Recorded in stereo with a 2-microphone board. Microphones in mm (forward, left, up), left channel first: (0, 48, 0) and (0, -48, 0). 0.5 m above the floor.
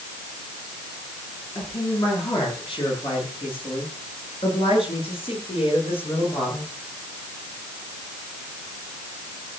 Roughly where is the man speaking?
Left.